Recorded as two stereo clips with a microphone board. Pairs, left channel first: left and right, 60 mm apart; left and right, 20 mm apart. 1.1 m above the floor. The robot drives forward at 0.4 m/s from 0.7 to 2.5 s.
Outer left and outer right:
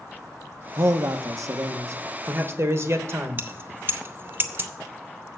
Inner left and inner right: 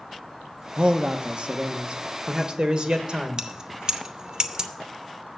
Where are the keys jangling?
35° right (ahead or behind), 0.7 m.